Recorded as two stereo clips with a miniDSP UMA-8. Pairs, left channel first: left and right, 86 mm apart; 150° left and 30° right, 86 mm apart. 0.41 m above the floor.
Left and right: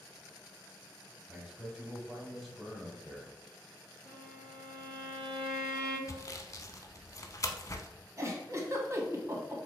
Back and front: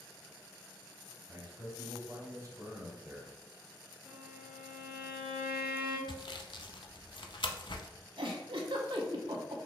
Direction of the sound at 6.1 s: 140° left.